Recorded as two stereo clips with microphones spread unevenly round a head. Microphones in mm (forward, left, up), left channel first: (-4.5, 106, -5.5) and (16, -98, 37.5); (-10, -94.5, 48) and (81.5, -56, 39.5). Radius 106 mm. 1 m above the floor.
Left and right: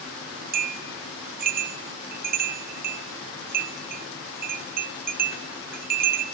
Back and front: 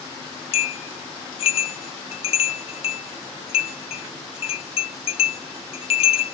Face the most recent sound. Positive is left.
turn(degrees=-135)